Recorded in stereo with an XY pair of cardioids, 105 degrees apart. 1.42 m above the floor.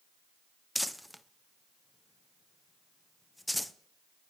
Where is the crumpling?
5° left, 0.5 m.